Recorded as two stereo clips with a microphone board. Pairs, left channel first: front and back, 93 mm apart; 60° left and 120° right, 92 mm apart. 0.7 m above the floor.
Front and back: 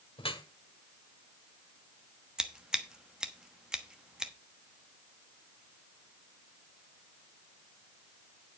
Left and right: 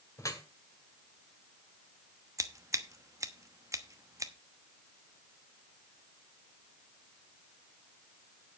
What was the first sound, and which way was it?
Dripping, 5° left.